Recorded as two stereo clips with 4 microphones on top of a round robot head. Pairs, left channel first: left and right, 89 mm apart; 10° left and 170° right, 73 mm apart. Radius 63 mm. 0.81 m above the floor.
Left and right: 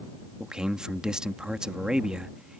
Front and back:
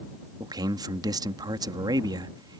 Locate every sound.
0.4 s a man speaking: 170° right